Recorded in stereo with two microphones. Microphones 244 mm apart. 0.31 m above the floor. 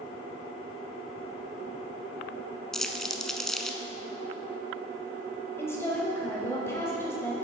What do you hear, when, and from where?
2.7 s crumpling: centre (ahead or behind), 0.5 m
5.6 s a woman speaking: 10° left (ahead or behind), 1.7 m